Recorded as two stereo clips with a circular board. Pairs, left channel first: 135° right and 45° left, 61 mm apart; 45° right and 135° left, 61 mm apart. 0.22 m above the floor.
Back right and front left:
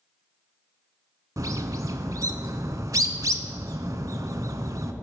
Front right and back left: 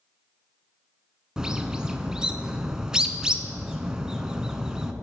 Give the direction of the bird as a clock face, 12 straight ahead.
10 o'clock.